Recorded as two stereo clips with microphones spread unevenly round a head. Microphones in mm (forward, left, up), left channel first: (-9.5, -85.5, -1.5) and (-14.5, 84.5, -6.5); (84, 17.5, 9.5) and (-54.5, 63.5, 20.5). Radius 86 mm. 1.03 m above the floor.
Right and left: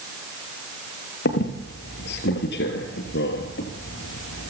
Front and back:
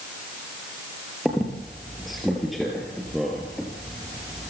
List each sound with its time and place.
1.2 s a squeak: 110° right, 3.5 m